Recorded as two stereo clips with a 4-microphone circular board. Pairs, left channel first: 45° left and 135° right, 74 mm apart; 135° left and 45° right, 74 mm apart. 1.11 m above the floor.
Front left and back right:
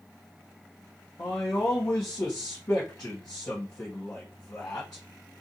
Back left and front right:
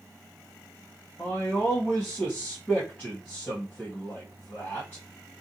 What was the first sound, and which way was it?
A man speaking, 80° left.